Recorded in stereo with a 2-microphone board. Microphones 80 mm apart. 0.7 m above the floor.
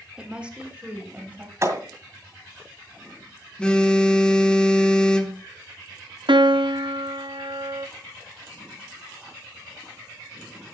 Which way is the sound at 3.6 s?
10° left (ahead or behind).